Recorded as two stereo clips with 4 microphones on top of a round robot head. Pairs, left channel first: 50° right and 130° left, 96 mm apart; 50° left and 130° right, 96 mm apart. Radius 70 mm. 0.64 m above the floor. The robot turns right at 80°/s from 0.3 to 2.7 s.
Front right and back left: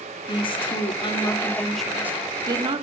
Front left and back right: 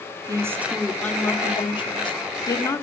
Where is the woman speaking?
80° right, 2 m; by 2.8 s 110° left, 2 m.